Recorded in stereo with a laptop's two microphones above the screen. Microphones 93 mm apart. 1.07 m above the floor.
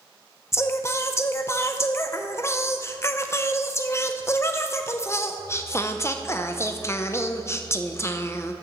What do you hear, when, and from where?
0.5 s singing: 30° left (ahead or behind), 0.7 m